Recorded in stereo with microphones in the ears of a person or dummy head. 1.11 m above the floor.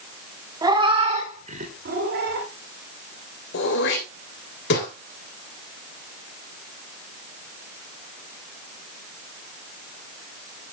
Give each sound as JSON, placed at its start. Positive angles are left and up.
{"t": 0.6, "sound": "a cat meowing", "side_deg": -20, "distance_m": 2.0}
{"t": 3.5, "sound": "throat clearing", "side_deg": 60, "distance_m": 3.0}